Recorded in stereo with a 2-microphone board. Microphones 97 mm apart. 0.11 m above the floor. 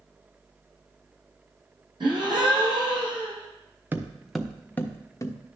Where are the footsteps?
20° right (ahead or behind), 1.1 m; by 5.3 s 35° left (ahead or behind), 1.5 m.